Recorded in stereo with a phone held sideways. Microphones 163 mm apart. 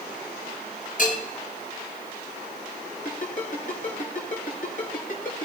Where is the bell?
55° left (ahead or behind), 6 m.